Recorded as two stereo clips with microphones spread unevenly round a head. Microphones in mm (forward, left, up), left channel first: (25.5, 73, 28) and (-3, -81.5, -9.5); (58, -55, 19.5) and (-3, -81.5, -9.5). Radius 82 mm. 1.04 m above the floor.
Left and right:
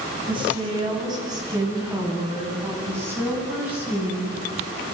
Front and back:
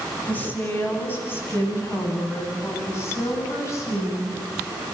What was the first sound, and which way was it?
A woman speaking, 40° right.